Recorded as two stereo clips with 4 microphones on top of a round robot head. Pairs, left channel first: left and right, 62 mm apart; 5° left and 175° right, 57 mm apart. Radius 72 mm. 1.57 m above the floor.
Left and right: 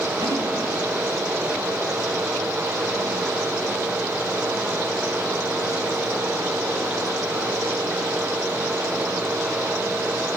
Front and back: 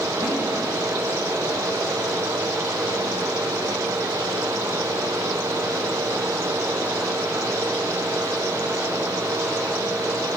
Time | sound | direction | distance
0.2 | a snare drum | 125° right | 6 m